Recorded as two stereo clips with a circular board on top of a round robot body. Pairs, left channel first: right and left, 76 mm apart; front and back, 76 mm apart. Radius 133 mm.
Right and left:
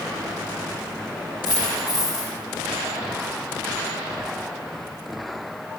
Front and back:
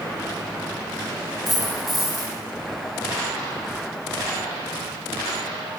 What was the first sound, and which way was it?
A dropped coin, 105° left.